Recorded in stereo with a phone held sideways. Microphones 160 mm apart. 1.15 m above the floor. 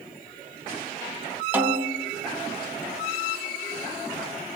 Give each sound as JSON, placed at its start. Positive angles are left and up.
{"t": 1.5, "sound": "a snare drum", "side_deg": -10, "distance_m": 0.8}